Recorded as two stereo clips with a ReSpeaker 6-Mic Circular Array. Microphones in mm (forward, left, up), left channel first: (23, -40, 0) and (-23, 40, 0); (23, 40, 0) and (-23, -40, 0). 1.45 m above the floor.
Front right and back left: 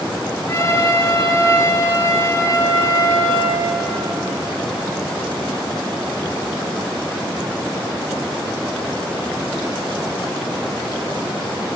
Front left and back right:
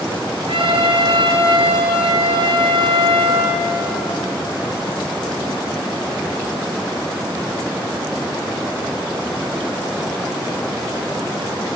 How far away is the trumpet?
About 3.5 m.